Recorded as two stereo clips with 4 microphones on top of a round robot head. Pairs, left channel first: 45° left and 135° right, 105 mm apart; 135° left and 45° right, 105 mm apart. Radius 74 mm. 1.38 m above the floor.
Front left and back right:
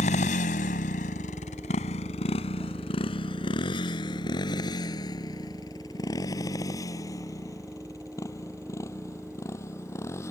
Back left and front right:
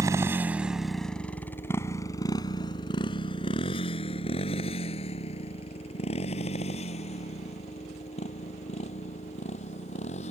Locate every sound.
0.0 s a motorcycle: 20° left; by 10.3 s 110° left